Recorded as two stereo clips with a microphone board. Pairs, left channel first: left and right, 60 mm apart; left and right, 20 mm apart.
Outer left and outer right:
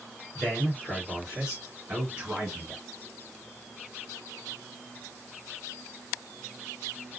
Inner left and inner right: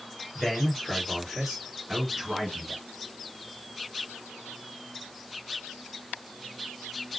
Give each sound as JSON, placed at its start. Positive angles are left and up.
{"t": 0.3, "sound": "a man speaking", "side_deg": 0, "distance_m": 2.0}